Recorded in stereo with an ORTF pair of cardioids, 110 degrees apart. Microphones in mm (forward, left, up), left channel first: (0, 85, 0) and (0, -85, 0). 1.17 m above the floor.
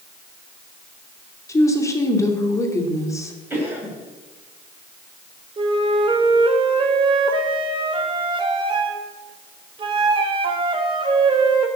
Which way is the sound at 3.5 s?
10° right.